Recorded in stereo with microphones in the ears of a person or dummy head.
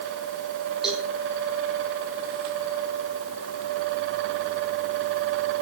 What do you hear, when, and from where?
0.8 s a cowbell: 5° right (ahead or behind), 5 m